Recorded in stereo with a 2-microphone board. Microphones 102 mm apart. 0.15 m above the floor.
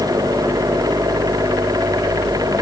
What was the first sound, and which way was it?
Only background noise.